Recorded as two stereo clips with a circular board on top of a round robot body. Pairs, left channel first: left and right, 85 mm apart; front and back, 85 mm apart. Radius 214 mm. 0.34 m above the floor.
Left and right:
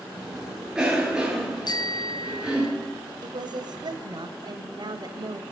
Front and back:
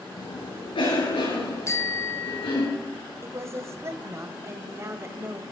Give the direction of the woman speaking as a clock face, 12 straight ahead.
4 o'clock.